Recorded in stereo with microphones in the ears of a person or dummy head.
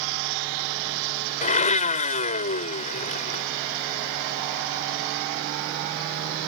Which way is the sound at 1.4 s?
40° left (ahead or behind).